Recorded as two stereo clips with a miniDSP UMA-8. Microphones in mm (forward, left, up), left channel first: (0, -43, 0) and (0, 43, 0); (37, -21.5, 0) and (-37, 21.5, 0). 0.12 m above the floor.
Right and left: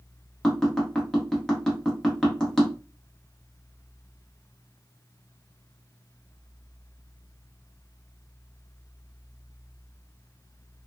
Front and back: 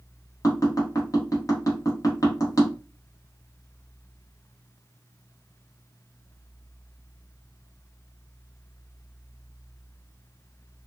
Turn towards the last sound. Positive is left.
turn(degrees=-10)